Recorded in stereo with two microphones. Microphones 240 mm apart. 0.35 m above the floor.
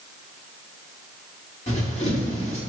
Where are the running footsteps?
25° left (ahead or behind), 2.5 m.